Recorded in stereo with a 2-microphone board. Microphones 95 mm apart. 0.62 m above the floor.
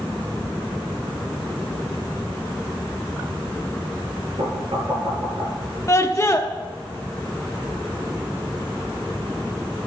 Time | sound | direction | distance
4.4 | knocking | 65° right (ahead or behind) | 6.5 m
5.9 | a scream | 30° left (ahead or behind) | 0.7 m